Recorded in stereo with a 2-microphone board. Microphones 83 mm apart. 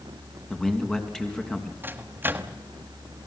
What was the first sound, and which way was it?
A man speaking, 10° left (ahead or behind).